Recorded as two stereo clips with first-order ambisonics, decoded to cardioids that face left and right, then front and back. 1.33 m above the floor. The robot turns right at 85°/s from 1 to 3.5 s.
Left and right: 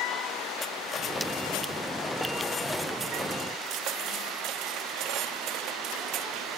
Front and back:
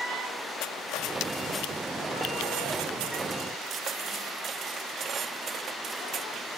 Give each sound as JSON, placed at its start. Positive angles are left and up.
{"t": 0.6, "sound": "cutlery clinking", "azimuth_deg": 25}